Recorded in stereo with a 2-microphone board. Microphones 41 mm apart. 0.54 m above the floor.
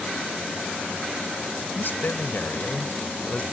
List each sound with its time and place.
1.8 s a man speaking: 60° left (ahead or behind); by 3.4 s 35° left (ahead or behind)